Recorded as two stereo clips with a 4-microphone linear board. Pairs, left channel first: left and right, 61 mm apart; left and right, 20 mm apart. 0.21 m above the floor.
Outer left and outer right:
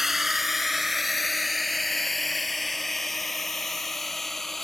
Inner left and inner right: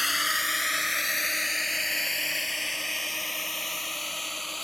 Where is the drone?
5° right (ahead or behind); by 4.6 s 5° left (ahead or behind).